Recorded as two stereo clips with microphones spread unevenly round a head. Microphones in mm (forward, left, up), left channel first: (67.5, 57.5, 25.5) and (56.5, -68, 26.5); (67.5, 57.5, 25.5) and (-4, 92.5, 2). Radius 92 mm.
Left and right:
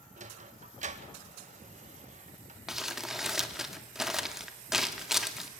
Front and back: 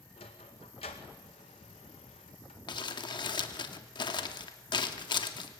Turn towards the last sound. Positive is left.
turn(degrees=-10)